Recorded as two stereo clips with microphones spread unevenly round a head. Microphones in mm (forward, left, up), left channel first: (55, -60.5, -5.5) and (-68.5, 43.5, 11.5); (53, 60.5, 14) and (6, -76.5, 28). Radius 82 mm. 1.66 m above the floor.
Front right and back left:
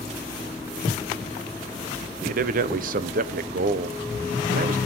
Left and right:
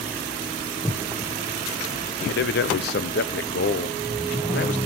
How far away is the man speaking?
About 1.0 m.